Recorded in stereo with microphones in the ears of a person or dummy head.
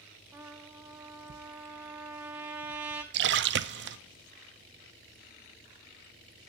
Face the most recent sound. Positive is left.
turn(degrees=-55)  # may be behind; listen again after turning